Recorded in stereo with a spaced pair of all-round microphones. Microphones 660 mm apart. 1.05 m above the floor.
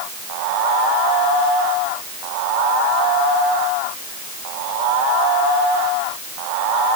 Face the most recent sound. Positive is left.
No sound to turn to.